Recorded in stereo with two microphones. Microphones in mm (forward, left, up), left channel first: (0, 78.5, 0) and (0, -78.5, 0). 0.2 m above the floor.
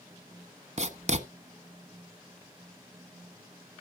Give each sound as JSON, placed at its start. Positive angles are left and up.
{"t": 0.8, "sound": "writing", "side_deg": -45, "distance_m": 1.0}